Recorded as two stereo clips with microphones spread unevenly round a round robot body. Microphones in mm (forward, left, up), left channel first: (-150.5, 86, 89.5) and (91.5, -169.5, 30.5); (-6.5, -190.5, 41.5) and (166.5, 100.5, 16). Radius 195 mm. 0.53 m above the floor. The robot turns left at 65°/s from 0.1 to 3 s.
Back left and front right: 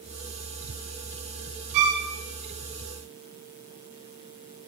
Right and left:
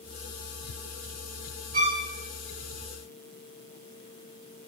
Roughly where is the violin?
Ahead.